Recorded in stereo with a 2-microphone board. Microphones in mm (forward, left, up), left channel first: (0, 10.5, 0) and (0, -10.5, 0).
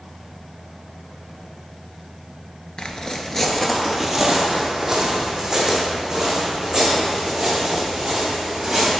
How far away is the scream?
I don't hear a scream.